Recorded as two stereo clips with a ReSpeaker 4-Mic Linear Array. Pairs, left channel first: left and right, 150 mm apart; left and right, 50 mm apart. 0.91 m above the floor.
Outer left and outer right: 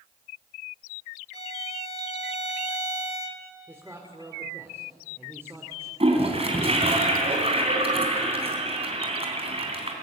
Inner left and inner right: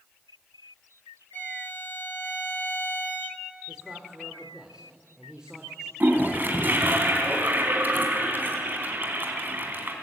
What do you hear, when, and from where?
1.3 s a violin: 40° left (ahead or behind), 1.5 m
3.7 s a man speaking: 15° right (ahead or behind), 2.5 m
6.0 s a toilet flushing: 40° right (ahead or behind), 3.5 m